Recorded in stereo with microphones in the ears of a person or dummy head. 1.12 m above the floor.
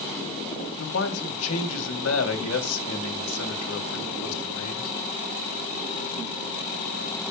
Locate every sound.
0.8 s a man speaking: 75° left (ahead or behind), 3 m